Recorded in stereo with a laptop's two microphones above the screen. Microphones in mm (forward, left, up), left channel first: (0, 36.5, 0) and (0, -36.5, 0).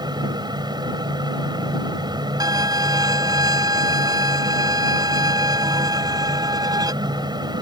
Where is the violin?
65° right (ahead or behind).